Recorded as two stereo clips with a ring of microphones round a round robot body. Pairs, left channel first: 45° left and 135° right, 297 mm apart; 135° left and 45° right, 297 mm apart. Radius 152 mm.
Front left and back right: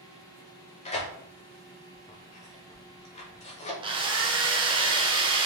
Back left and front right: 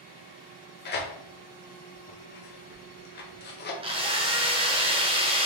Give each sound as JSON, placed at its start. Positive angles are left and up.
{"t": 0.8, "sound": "tearing paper", "azimuth_deg": 100, "distance_m": 0.8}
{"t": 3.8, "sound": "a drill", "azimuth_deg": -90, "distance_m": 0.8}